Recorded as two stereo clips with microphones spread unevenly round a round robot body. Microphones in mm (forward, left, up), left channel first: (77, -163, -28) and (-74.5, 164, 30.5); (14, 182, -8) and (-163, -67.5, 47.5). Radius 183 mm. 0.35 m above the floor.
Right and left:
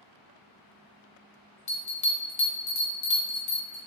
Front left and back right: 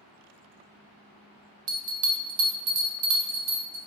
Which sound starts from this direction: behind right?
A bell, at 1.7 s.